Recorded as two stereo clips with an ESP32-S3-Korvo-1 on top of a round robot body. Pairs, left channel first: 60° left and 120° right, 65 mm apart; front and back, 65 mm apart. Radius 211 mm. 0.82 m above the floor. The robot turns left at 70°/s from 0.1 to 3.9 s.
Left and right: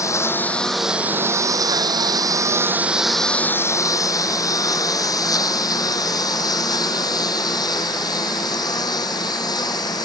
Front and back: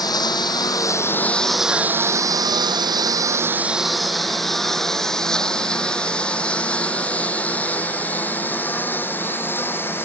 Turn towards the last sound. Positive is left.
turn(degrees=55)